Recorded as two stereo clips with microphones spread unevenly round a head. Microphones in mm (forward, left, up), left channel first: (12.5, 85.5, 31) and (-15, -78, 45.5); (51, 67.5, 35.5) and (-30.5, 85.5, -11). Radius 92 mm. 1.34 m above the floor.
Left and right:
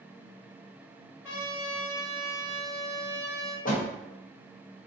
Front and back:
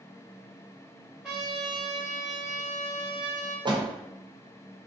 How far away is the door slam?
About 1.0 m.